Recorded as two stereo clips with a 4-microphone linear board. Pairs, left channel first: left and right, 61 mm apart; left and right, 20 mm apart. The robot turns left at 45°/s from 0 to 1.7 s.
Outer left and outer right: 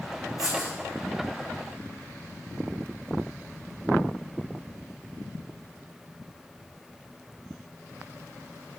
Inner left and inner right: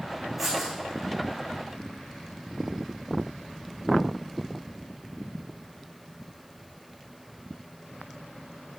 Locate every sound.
0.4 s writing: centre (ahead or behind), 2.5 m; by 0.7 s 15° right (ahead or behind), 2.5 m